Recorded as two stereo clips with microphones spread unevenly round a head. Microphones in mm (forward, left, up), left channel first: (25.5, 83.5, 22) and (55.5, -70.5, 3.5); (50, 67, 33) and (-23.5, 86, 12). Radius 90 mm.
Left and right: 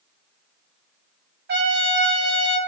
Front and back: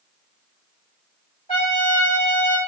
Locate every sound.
1.5 s a trumpet: 55° right, 2.5 m